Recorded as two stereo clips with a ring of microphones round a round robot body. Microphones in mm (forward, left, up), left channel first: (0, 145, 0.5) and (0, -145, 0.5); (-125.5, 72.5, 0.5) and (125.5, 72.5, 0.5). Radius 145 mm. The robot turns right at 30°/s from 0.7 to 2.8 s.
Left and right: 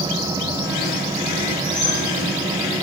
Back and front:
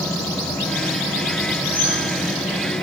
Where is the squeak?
175° right, 7.5 m; by 2.0 s 165° right, 7.5 m.